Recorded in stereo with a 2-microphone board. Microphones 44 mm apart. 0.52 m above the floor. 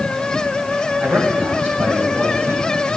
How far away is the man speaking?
About 3 m.